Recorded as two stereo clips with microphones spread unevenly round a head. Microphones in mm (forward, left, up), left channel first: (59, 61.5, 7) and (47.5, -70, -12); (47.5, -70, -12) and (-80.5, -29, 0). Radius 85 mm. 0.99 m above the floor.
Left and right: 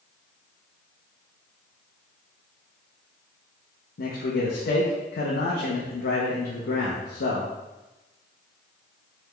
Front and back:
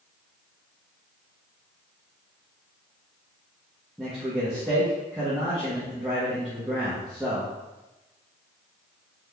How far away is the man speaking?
About 0.7 m.